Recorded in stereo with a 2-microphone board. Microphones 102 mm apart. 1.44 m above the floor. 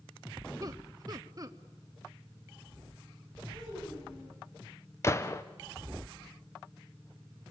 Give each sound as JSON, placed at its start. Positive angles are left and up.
{"t": 0.6, "sound": "laughter", "side_deg": -35, "distance_m": 1.2}
{"t": 3.5, "sound": "a child speaking", "side_deg": 65, "distance_m": 8.5}
{"t": 5.0, "sound": "a gunshot", "side_deg": 30, "distance_m": 1.0}